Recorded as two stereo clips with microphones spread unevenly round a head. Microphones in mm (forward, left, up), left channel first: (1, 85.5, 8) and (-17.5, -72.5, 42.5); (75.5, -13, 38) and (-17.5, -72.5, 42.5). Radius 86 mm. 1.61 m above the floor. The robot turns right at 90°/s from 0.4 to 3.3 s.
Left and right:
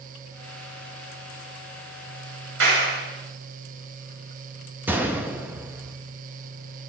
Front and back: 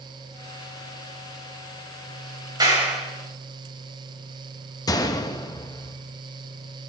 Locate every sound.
2.6 s a clap: 95° right, 7.5 m; by 3.0 s 55° right, 7.5 m
4.9 s a gunshot: 20° right, 1.6 m